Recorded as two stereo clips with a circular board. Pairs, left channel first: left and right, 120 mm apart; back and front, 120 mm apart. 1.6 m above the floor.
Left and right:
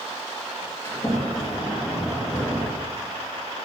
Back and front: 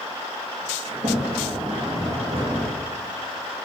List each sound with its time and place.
0.8 s a sliding door: 30° left, 1.7 m